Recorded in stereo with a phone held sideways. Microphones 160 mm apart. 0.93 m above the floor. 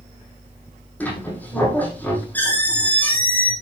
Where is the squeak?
10° left (ahead or behind), 6.5 m.